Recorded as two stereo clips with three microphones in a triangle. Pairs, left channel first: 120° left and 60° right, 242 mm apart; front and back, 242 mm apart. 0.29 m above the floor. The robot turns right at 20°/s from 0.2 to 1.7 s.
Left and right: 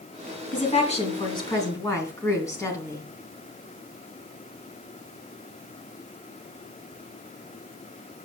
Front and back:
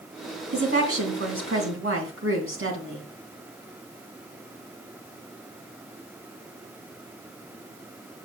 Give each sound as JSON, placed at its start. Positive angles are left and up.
{"t": 0.5, "sound": "a woman speaking", "azimuth_deg": 170, "distance_m": 2.5}